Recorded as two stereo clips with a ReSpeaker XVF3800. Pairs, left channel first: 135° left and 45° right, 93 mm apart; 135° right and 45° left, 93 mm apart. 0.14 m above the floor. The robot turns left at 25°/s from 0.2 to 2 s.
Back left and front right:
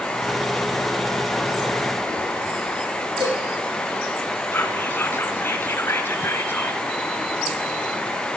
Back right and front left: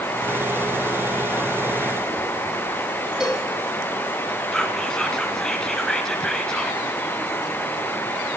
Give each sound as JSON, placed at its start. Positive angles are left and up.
{"t": 3.2, "sound": "a cowbell", "azimuth_deg": -35, "distance_m": 5.0}
{"t": 4.5, "sound": "whispering", "azimuth_deg": 150, "distance_m": 1.6}